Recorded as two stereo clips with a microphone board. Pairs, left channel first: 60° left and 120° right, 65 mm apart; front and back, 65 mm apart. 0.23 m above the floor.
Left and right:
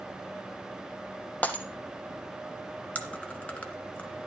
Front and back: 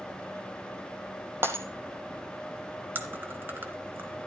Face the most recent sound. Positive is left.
turn(degrees=125)